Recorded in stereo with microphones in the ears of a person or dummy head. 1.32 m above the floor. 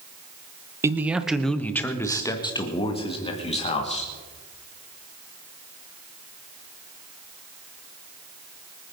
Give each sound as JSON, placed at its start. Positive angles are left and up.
{"t": 0.8, "sound": "a man speaking", "side_deg": -20, "distance_m": 1.0}